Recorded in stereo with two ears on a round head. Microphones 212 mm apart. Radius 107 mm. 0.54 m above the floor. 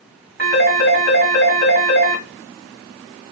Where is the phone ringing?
40° right (ahead or behind), 1.9 m.